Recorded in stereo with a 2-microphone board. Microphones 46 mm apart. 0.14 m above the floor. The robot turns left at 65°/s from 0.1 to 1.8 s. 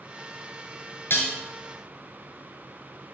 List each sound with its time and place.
1.1 s dishes clattering: 55° left (ahead or behind), 1.5 m; by 1.4 s 50° left (ahead or behind), 1.5 m